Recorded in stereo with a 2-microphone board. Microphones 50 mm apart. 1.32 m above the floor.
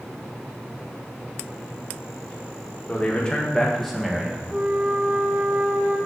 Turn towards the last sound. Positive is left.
turn(degrees=-35)  # may be behind; listen again after turning